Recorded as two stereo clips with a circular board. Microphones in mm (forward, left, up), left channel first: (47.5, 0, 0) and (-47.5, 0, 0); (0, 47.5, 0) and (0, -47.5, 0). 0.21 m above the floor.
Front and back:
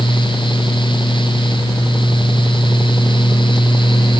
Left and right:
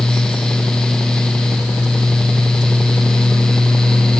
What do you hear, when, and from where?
Only background noise.